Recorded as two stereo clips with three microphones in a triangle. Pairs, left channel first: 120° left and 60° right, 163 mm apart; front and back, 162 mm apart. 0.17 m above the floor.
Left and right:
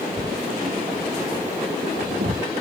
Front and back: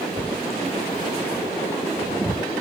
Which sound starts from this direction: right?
Writing, at 0.2 s.